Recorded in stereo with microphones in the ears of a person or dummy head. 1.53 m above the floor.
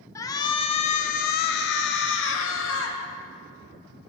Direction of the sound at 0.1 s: 15° left (ahead or behind).